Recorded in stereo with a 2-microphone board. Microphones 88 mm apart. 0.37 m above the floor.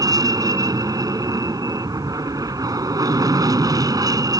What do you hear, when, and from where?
0.0 s an aircraft: 45° right (ahead or behind)